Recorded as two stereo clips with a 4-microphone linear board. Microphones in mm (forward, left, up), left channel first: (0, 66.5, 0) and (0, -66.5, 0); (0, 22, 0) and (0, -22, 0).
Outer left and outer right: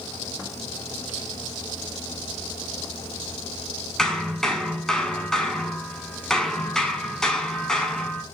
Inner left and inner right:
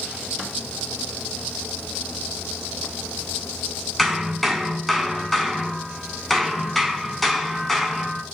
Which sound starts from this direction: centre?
Hammering, at 4.0 s.